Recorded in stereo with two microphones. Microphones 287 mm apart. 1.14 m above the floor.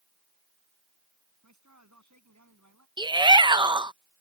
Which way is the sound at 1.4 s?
80° right.